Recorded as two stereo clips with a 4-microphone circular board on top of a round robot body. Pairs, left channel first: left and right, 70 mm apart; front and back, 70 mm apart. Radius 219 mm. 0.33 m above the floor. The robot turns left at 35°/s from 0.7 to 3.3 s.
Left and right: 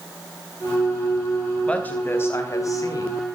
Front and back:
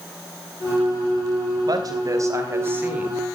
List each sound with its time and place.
1.7 s a woman speaking: 160° left, 4.5 m; by 3.2 s 110° left, 4.5 m